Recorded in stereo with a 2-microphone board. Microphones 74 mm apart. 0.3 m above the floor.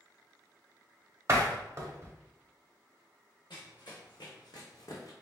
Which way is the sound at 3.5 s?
80° left.